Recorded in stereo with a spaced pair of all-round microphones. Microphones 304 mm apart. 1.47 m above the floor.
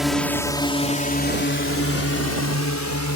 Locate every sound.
0.0 s a drone: centre (ahead or behind); by 3.2 s 65° left (ahead or behind)